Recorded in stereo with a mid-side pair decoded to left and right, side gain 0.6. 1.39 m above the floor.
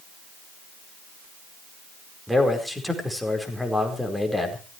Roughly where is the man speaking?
Ahead.